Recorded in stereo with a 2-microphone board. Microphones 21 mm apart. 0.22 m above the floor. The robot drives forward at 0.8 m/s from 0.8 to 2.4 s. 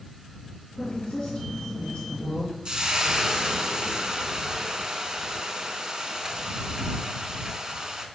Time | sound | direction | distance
0.8 | a woman speaking | 65° left (ahead or behind) | 3 m
2.6 | frying | 40° right (ahead or behind) | 0.7 m